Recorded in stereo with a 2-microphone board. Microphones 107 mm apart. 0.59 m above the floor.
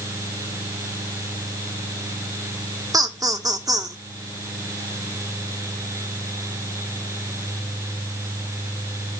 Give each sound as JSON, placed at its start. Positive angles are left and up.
{"t": 2.9, "sound": "laughter", "side_deg": -35, "distance_m": 1.6}